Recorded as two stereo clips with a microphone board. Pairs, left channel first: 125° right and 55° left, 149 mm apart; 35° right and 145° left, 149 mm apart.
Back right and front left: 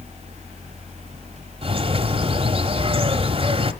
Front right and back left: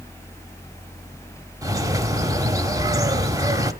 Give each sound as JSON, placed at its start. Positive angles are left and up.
{"t": 1.6, "sound": "a bird", "azimuth_deg": 90, "distance_m": 1.1}